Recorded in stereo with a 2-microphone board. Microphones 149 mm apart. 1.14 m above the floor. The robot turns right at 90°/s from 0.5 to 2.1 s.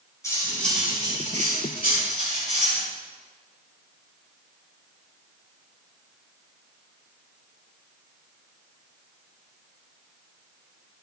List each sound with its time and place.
0.2 s cutlery clinking: 160° left, 6 m; by 2.8 s 55° right, 6 m